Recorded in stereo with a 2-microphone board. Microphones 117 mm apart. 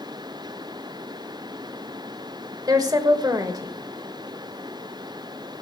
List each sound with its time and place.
2.7 s a woman speaking: 35° right (ahead or behind), 1.5 m